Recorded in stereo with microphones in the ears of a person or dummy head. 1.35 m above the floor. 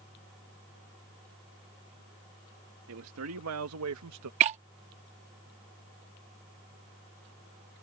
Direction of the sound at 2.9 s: 75° right (ahead or behind).